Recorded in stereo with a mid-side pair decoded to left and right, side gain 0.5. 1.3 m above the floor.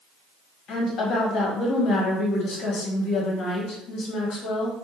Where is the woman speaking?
65° left, 1.2 m.